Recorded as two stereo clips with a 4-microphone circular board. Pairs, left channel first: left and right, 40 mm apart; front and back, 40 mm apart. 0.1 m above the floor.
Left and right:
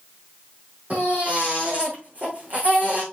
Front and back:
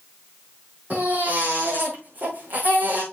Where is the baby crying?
135° right, 4.5 m.